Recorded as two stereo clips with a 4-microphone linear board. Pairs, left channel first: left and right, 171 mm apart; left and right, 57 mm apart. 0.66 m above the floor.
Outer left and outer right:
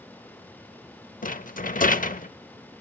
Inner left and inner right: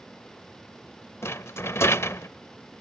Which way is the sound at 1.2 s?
50° left (ahead or behind).